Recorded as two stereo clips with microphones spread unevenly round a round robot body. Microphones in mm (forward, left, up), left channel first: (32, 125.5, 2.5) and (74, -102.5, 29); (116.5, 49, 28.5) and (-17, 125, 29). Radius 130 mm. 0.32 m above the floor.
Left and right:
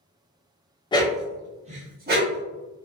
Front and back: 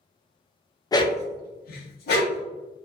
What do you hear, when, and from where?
0.9 s a dog barking: 35° left, 0.5 m; by 2.4 s 35° right, 1.2 m